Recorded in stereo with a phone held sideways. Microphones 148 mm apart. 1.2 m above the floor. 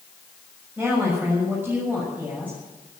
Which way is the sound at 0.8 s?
10° right (ahead or behind).